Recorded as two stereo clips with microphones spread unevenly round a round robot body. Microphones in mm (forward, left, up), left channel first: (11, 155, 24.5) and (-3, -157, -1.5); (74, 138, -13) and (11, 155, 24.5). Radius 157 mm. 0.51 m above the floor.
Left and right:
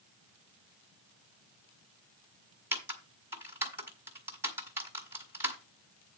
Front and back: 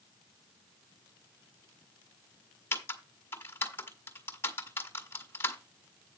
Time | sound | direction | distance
2.7 | typing on a keyboard | 15° right | 1.8 m